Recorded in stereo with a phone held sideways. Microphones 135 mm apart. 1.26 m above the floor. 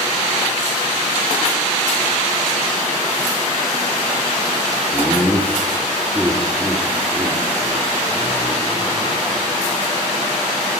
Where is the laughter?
20° left (ahead or behind), 1.4 m; by 9.8 s 30° right (ahead or behind), 4 m.